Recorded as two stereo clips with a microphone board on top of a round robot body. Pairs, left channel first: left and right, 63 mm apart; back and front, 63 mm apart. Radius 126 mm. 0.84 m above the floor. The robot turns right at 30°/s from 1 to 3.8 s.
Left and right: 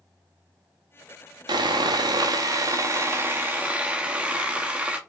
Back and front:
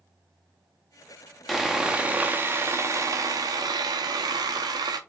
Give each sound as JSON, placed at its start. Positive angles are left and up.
{"t": 1.5, "sound": "sawing", "azimuth_deg": -90, "distance_m": 0.7}